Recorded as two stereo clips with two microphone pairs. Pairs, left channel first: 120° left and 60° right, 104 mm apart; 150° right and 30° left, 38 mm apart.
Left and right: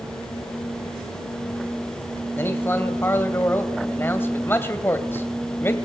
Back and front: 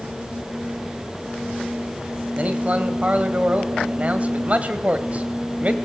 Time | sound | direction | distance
2.4 | a man speaking | 60° left | 1.7 m